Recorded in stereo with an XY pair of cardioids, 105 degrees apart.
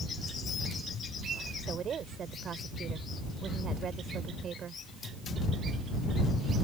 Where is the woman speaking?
50° right.